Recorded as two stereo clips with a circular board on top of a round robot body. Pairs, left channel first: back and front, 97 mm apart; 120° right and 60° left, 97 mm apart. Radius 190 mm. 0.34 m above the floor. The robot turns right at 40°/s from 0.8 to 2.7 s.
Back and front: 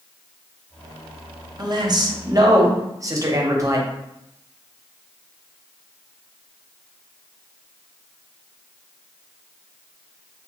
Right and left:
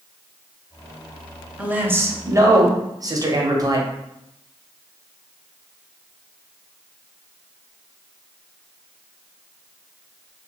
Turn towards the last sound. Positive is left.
turn(degrees=35)